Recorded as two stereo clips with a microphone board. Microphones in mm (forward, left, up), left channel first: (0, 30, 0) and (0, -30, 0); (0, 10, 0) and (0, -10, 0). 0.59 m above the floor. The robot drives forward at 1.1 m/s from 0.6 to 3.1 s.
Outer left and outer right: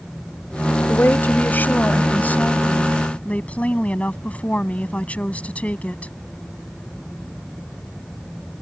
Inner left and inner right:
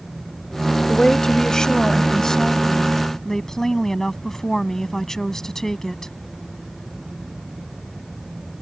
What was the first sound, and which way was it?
A woman speaking, 35° left (ahead or behind).